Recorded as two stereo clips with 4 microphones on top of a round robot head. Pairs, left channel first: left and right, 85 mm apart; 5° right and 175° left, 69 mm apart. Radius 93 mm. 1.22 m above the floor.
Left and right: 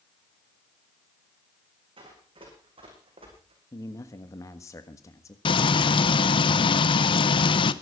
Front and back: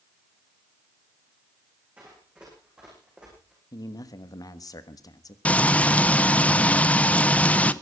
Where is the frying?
70° left, 0.9 m.